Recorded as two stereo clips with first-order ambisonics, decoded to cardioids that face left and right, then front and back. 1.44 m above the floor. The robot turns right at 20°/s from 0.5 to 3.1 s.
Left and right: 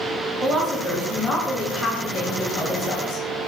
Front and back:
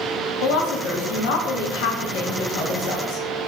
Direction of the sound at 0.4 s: 10° right.